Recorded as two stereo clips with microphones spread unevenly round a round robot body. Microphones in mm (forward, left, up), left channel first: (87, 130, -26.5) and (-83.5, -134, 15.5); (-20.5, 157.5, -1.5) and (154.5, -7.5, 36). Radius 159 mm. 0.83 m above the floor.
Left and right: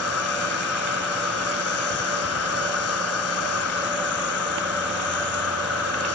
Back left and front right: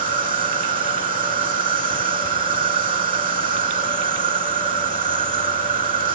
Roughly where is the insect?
Ahead.